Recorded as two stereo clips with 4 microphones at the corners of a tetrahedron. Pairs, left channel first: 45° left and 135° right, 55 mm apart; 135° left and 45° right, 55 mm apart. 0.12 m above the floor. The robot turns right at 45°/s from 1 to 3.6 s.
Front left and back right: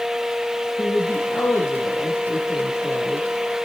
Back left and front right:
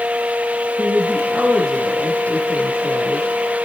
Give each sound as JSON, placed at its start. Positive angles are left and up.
{"t": 0.8, "sound": "a woman speaking", "azimuth_deg": 20, "distance_m": 4.0}